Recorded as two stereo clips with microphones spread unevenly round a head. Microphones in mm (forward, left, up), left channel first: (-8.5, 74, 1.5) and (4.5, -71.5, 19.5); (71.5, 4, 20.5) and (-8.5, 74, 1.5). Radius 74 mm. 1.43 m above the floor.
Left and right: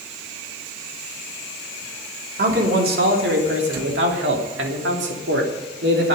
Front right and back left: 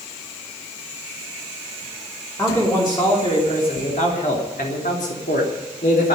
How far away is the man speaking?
About 3.5 m.